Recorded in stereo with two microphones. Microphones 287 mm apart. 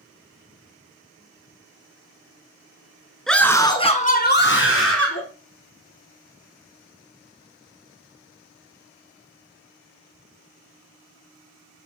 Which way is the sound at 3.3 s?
Centre (ahead or behind).